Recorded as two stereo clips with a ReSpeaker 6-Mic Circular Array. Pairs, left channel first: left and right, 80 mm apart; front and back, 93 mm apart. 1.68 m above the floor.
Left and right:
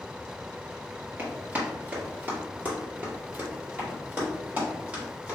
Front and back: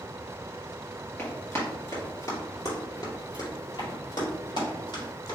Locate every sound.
1.2 s running footsteps: 45° right, 2.0 m; by 5.3 s 20° right, 4.5 m